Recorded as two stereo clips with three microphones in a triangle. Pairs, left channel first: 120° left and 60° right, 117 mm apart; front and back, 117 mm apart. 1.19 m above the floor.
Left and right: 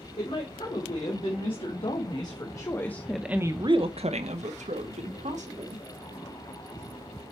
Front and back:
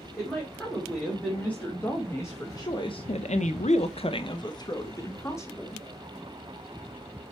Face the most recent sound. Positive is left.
turn(degrees=-70)